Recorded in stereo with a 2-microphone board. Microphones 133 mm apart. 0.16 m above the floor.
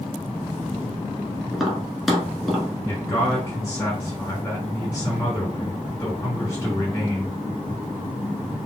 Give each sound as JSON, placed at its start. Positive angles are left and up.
{"t": 1.5, "sound": "tapping", "side_deg": 0, "distance_m": 1.2}
{"t": 2.8, "sound": "a man speaking", "side_deg": 15, "distance_m": 1.9}